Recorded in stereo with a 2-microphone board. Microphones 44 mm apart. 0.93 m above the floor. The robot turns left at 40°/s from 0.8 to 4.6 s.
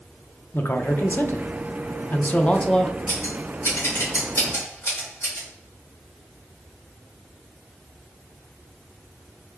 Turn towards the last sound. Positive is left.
turn(degrees=45)  # may be behind; listen again after turning